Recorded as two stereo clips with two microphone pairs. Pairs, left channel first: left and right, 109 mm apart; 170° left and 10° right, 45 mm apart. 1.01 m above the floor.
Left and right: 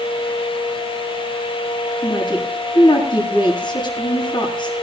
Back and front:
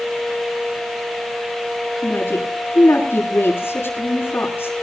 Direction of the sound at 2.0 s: 135° left.